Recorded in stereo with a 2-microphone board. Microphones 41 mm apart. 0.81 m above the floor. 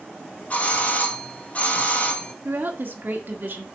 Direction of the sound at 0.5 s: 35° left (ahead or behind).